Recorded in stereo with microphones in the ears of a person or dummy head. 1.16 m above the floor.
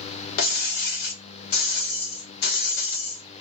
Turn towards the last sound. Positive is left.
turn(degrees=60)  # may be behind; listen again after turning